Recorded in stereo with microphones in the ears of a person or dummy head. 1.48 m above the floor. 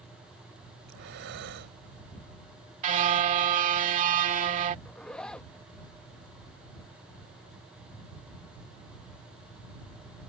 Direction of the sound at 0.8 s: 70° right (ahead or behind).